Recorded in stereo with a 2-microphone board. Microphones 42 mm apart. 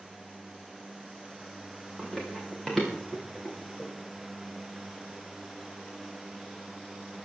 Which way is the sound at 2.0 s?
5° left (ahead or behind).